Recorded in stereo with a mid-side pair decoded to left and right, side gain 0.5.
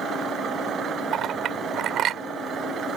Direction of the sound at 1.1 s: 60° right.